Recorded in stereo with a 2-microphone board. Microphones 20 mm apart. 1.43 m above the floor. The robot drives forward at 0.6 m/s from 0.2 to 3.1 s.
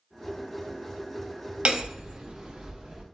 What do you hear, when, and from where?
1.6 s hammering: 55° right (ahead or behind), 1.2 m; by 3.0 s 35° right (ahead or behind), 1.6 m